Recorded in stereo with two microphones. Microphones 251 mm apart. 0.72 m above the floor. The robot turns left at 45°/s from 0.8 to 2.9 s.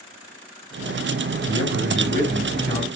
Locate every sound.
1.5 s a man speaking: 70° left, 5.5 m; by 2.9 s 10° left, 5.5 m